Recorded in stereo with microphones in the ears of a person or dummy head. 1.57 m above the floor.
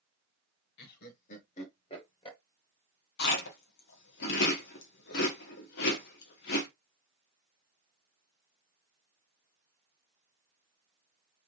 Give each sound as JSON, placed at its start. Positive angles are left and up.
{"t": 0.8, "sound": "laughter", "side_deg": 55, "distance_m": 1.4}
{"t": 3.2, "sound": "chewing", "side_deg": 60, "distance_m": 1.3}